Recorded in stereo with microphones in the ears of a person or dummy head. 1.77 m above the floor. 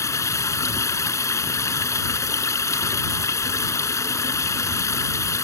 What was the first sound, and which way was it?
Running water, 20° left (ahead or behind).